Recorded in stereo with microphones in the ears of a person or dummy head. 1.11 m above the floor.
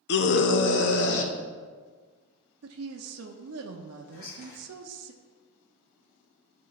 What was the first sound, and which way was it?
A scream, 55° left (ahead or behind).